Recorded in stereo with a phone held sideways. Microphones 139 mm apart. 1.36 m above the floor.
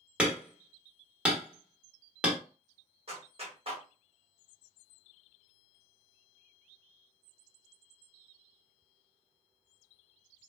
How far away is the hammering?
About 1.3 m.